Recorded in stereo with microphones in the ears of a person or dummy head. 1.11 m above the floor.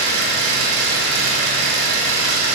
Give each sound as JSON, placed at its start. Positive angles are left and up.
{"t": 0.0, "sound": "an engine running", "side_deg": -75, "distance_m": 3.5}